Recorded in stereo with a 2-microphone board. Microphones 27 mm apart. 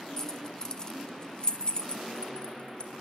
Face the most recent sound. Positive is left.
turn(degrees=40)  # may be behind; listen again after turning